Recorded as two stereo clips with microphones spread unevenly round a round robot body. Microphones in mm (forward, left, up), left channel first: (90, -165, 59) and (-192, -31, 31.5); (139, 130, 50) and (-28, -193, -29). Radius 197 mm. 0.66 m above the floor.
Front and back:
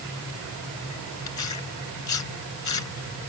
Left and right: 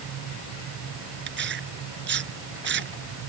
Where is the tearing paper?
55° right.